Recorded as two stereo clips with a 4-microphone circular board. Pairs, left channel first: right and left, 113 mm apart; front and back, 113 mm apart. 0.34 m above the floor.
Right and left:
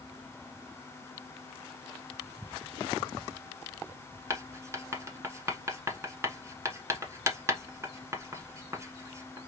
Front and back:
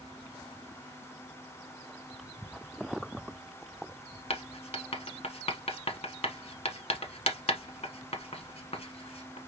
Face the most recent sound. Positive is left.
turn(degrees=25)